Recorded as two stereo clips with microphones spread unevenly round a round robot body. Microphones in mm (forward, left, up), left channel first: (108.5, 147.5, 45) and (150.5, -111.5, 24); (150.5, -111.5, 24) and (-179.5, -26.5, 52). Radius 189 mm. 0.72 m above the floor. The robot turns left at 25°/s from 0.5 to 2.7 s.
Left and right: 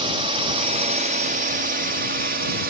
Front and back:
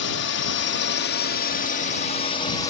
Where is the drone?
25° right; by 2.7 s 80° right.